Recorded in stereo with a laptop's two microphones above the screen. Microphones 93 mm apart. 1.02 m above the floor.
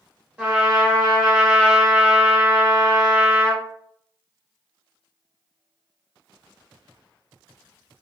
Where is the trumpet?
20° right (ahead or behind), 1.3 m.